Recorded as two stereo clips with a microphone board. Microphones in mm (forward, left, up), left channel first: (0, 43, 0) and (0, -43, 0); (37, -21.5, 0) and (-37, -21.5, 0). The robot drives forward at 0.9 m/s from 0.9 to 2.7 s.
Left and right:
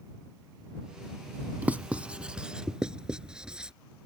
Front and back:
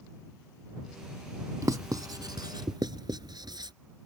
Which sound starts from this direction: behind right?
Writing, at 1.6 s.